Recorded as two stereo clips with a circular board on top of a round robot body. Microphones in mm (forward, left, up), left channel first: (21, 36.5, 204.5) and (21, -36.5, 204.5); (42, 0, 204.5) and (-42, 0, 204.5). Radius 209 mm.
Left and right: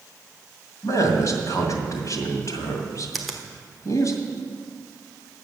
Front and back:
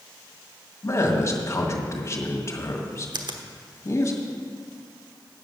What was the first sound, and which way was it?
A man speaking, 50° left.